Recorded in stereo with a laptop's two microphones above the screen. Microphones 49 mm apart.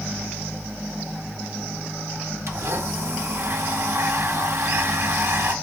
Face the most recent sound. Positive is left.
turn(degrees=-65)  # may be behind; listen again after turning